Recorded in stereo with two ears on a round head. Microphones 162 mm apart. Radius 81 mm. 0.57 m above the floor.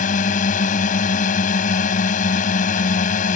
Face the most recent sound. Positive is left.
turn(degrees=45)  # may be behind; listen again after turning